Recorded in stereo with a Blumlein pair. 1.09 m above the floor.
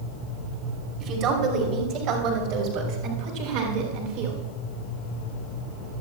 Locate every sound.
1.0 s a woman speaking: 35° right, 4 m; by 4.4 s 55° right, 5 m